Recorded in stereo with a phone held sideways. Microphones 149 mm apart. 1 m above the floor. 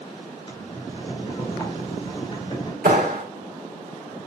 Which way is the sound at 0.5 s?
35° left (ahead or behind).